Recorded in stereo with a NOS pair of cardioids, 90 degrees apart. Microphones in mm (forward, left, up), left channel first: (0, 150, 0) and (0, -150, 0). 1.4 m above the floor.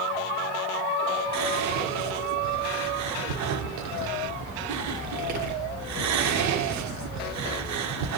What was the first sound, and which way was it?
Whispering, 65° right.